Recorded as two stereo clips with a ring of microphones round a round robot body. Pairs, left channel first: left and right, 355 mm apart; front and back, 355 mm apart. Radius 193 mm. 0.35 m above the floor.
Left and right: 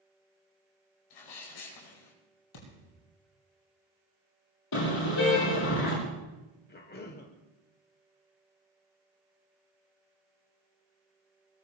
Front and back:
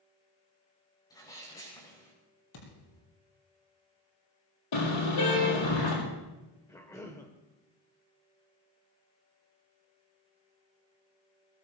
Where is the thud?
45° left, 5.5 m.